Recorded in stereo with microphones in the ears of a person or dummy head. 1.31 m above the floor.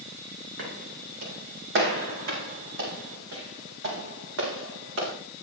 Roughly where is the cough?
I don't hear a cough.